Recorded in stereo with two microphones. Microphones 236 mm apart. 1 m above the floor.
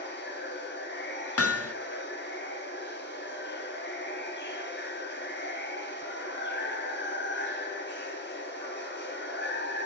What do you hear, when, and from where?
0.0 s running water: 45° left (ahead or behind), 2 m
1.4 s hammering: 70° left (ahead or behind), 0.5 m